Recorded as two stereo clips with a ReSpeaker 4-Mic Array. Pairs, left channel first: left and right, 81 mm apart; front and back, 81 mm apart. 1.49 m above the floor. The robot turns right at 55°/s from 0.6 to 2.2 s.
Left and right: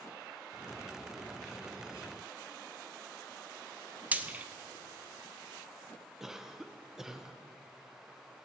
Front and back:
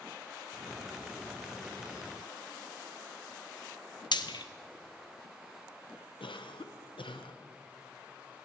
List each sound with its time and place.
4.1 s frying: 20° right, 0.8 m
6.2 s a cough: 5° right, 1.0 m